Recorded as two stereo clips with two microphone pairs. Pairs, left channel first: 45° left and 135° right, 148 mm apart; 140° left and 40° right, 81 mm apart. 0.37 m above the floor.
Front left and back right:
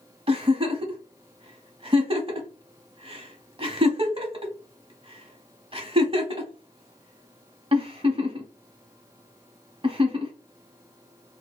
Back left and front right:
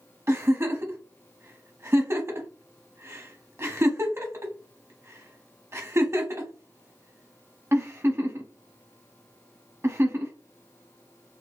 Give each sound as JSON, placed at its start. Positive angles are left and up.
{"t": 0.3, "sound": "a giggle", "azimuth_deg": -90, "distance_m": 0.7}